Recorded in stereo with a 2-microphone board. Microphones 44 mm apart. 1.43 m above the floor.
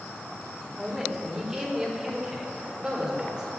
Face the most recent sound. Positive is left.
turn(degrees=-20)  # may be behind; listen again after turning